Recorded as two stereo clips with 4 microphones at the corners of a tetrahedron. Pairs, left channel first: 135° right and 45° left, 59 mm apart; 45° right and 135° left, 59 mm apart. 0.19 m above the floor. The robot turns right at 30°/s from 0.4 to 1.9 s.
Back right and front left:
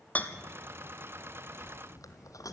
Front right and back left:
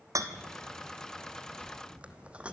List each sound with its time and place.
0.1 s a rattle: 160° left, 1.2 m; by 2.5 s 155° right, 1.2 m